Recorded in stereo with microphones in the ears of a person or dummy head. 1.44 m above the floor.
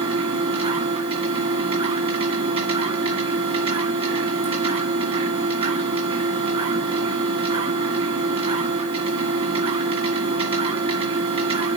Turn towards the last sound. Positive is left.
turn(degrees=-35)  # may be behind; listen again after turning